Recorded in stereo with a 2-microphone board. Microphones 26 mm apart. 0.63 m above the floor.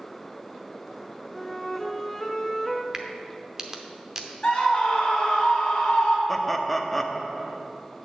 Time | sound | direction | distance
1.3 | a flute | 15° left (ahead or behind) | 0.6 m
2.9 | a crack | 20° right (ahead or behind) | 0.7 m
4.4 | a scream | 35° left (ahead or behind) | 2.5 m
6.3 | laughter | 5° left (ahead or behind) | 0.6 m